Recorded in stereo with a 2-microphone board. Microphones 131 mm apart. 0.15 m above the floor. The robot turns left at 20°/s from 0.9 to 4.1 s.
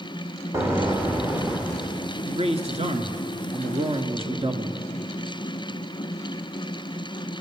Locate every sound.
0.5 s an explosion: 20° right (ahead or behind), 4 m; by 2.1 s 5° left (ahead or behind), 4 m
2.3 s a man speaking: 85° right, 1.9 m; by 4.8 s 120° right, 1.9 m